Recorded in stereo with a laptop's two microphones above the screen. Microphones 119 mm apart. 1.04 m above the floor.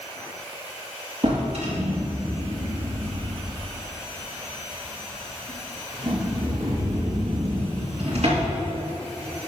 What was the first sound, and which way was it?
A drawer, 65° right (ahead or behind).